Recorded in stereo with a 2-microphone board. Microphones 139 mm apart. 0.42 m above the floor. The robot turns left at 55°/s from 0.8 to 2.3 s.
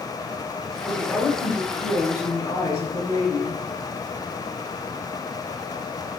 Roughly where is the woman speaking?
Centre.